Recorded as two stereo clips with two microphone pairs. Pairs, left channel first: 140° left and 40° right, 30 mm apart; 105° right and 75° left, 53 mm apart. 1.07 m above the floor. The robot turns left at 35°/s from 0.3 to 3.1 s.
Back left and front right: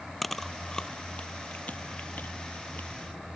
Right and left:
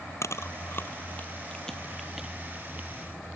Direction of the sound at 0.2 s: 135° right.